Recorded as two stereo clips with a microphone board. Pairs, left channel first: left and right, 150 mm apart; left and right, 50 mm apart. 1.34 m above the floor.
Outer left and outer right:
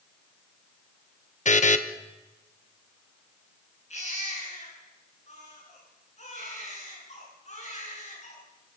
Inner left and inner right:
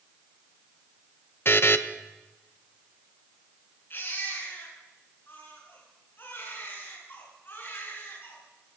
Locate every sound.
1.4 s a buzzer: 55° left (ahead or behind), 1.0 m
3.9 s a baby crying: 50° left (ahead or behind), 8.5 m